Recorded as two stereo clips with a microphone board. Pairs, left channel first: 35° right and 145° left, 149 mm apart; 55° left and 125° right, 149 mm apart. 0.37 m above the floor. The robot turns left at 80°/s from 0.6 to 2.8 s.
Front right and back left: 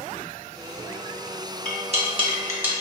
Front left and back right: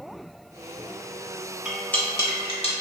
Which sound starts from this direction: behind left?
Cutlery clinking, at 1.6 s.